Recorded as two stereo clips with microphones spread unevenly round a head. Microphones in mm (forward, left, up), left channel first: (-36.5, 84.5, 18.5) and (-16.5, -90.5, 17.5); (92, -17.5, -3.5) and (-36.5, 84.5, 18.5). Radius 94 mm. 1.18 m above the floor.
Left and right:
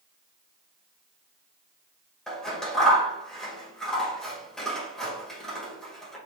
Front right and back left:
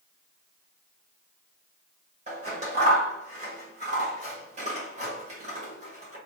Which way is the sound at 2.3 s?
175° right.